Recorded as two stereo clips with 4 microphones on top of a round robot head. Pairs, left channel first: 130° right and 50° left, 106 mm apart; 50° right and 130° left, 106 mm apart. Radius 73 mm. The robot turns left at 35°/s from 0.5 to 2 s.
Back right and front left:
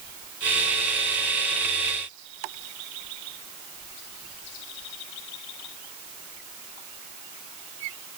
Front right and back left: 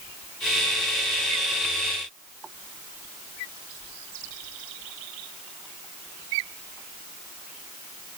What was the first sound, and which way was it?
Only background noise.